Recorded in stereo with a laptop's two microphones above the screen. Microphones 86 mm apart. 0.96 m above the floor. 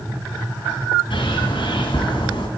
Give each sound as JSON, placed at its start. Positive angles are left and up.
{"t": 1.1, "sound": "a bird", "side_deg": 75, "distance_m": 2.5}